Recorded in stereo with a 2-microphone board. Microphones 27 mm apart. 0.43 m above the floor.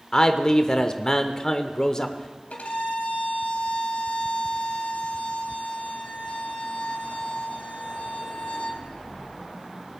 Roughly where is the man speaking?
Left.